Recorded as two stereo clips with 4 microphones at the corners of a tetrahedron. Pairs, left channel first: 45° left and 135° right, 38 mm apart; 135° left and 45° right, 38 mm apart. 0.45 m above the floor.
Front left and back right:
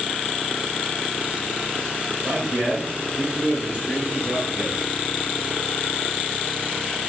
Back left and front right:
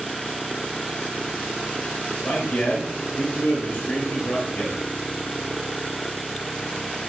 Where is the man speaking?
165° left, 1.4 m.